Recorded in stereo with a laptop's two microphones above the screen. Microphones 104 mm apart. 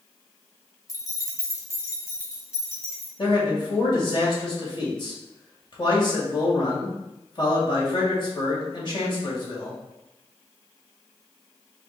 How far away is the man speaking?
About 1.9 m.